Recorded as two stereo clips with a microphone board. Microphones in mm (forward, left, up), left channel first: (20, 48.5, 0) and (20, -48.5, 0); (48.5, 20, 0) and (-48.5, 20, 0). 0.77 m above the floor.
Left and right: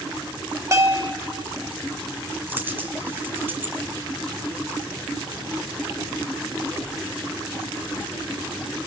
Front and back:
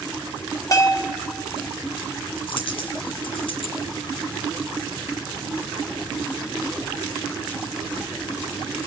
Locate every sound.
0.7 s a bell: 40° right, 1.5 m
2.5 s a dropped coin: 25° right, 2.5 m